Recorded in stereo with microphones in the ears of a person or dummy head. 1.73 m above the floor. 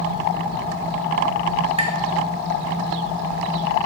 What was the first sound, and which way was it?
Tapping, 35° right (ahead or behind).